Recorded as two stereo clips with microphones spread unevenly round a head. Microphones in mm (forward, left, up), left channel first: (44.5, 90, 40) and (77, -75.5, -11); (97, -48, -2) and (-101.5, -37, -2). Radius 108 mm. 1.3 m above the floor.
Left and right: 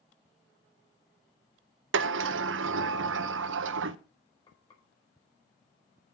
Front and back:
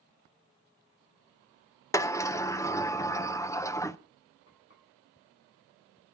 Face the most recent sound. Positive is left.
turn(degrees=40)